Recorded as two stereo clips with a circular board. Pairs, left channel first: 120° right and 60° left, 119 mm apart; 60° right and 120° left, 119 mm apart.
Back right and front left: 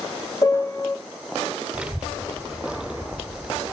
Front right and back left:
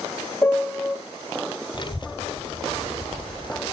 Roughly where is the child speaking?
Ahead.